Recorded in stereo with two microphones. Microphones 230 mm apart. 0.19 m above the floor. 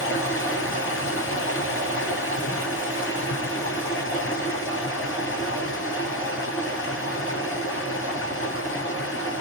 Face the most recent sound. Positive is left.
turn(degrees=65)  # may be behind; listen again after turning